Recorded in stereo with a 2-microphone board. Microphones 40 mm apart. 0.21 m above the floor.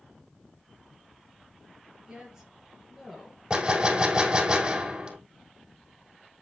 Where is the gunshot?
25° right (ahead or behind), 1.9 m.